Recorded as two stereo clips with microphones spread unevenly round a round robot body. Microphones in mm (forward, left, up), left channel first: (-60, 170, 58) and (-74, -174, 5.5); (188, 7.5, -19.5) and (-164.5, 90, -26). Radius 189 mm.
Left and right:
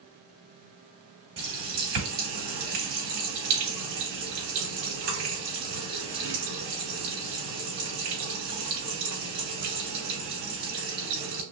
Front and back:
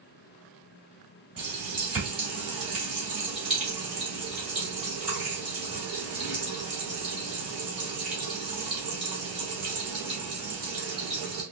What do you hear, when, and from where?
1.4 s a running tap: 105° right, 3 m